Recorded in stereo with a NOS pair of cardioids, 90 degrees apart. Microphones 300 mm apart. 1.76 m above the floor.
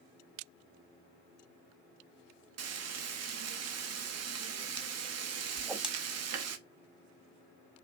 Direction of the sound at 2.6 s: 55° right.